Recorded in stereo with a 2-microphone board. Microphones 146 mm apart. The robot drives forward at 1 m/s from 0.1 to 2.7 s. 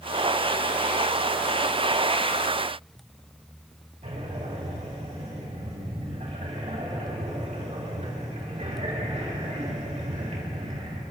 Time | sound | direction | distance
4.0 | breathing | 45° right (ahead or behind) | 6 m